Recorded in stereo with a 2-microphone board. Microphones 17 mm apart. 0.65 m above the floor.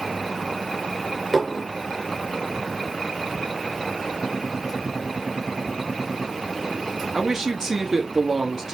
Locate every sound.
1.3 s dishes clattering: 5° right (ahead or behind), 1.2 m
4.2 s a gunshot: 50° right (ahead or behind), 2.5 m
7.1 s a man speaking: 30° right (ahead or behind), 1.3 m